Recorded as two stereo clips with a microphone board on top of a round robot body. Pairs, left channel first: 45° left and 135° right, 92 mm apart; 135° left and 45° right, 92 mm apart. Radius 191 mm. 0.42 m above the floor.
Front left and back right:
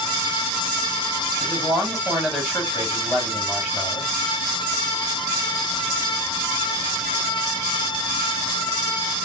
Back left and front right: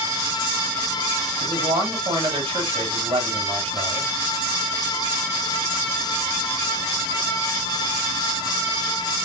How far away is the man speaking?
About 2.5 m.